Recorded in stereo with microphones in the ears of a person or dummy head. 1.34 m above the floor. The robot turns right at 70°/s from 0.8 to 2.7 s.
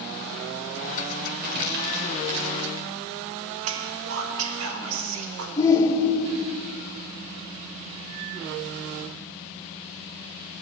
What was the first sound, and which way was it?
Crumpling, 45° right (ahead or behind).